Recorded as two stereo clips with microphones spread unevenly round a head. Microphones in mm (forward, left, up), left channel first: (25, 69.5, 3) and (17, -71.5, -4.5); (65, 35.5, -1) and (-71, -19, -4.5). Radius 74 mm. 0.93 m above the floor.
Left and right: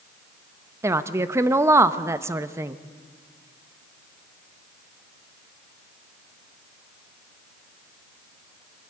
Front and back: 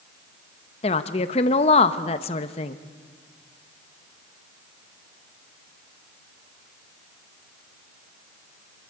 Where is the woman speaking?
25° right, 0.9 m.